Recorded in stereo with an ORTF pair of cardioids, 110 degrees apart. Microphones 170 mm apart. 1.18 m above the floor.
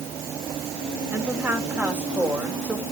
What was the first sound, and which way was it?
A woman speaking, 10° right.